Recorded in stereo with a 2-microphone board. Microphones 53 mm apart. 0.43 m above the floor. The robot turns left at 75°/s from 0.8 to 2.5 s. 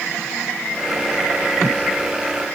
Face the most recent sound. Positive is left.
No sound to turn to.